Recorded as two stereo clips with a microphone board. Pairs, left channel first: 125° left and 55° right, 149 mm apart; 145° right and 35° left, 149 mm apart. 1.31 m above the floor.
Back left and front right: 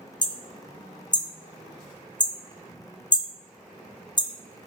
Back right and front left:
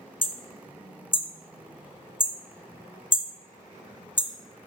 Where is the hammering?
175° left, 0.9 m.